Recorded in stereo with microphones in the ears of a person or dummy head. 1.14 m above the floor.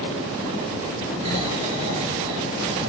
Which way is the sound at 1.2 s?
40° right (ahead or behind).